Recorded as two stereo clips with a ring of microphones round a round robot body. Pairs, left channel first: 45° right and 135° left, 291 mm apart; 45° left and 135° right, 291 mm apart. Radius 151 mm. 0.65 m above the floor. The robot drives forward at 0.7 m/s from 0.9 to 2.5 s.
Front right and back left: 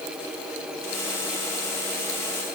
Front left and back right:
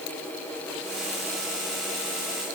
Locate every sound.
Only background noise.